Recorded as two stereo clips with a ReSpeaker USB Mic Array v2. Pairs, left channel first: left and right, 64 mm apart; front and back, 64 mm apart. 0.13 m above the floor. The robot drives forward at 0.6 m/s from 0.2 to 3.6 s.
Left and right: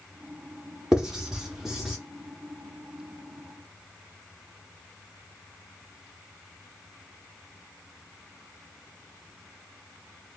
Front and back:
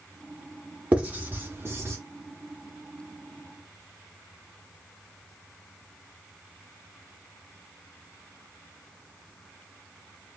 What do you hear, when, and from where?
0.9 s writing: 155° right, 1.2 m; by 2.0 s 170° right, 1.5 m